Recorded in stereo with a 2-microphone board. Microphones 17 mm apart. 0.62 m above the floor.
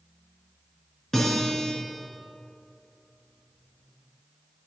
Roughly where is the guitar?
Left.